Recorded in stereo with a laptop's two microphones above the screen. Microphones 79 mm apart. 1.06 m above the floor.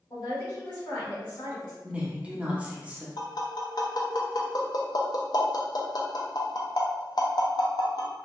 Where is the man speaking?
70° left (ahead or behind), 1.7 m.